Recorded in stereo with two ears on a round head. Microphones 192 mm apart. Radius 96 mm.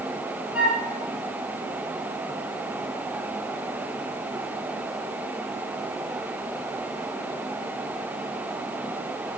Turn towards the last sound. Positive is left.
turn(degrees=-5)  # may be behind; listen again after turning